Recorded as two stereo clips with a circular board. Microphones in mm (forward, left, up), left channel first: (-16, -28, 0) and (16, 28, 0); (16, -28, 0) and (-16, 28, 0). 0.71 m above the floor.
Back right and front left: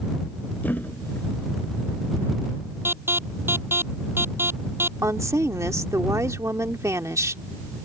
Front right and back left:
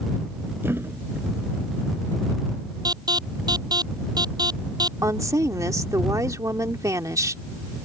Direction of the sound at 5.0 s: 95° left.